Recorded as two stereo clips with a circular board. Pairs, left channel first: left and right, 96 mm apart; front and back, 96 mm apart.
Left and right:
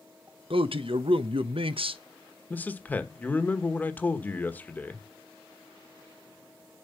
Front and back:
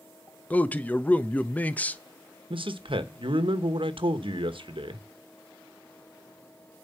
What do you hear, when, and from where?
0.5 s a man speaking: 70° right, 0.8 m
2.5 s a man speaking: 160° left, 1.2 m